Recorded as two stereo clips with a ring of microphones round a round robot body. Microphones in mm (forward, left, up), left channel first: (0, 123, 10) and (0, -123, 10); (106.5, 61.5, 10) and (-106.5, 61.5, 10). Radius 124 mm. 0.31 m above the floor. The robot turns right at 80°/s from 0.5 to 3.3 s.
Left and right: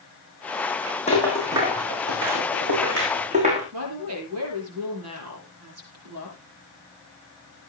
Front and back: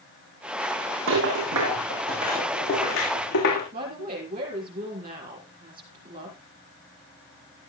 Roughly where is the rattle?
Behind left.